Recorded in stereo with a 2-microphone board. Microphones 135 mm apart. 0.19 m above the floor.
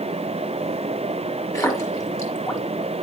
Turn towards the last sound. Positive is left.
turn(degrees=25)  # may be behind; listen again after turning